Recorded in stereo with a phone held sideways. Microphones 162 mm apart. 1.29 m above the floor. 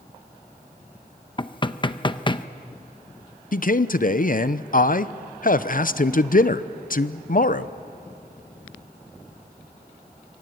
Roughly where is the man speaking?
Left.